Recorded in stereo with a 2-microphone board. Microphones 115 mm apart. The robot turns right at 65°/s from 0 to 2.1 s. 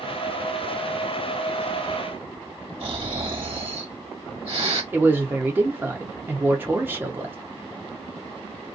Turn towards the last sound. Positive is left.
turn(degrees=-20)  # may be behind; listen again after turning